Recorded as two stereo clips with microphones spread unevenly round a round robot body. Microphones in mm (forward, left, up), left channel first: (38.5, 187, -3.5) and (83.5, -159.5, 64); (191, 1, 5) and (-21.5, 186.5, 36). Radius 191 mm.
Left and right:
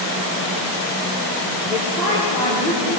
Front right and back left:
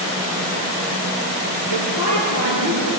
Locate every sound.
1.7 s a woman speaking: straight behind, 9.5 m